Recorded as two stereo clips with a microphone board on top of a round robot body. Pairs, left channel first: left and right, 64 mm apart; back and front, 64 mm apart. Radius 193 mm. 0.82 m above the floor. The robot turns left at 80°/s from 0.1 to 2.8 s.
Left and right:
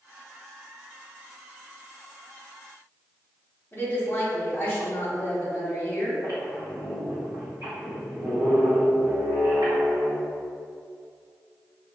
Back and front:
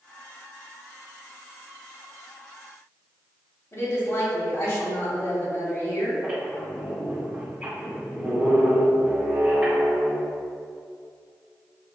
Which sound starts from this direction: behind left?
A woman speaking, at 3.7 s.